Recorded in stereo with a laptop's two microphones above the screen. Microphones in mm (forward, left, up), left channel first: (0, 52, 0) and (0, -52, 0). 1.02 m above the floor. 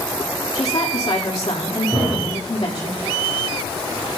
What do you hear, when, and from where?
0.6 s a woman speaking: 65° left (ahead or behind), 2.0 m
1.9 s a thud: 20° right (ahead or behind), 2.0 m